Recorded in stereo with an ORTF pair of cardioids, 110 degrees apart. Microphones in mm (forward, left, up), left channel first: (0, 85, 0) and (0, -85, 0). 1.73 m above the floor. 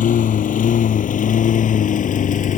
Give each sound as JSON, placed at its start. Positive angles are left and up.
{"t": 0.0, "sound": "a lawn mower", "azimuth_deg": 50}